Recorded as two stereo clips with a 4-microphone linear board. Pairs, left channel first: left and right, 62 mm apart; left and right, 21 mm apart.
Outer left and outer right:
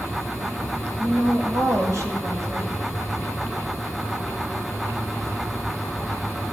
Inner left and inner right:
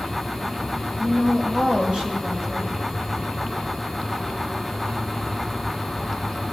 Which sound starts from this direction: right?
A woman speaking, at 1.0 s.